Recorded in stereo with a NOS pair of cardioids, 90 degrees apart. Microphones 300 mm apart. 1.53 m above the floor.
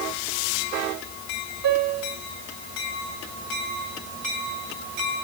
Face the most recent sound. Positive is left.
turn(degrees=-65)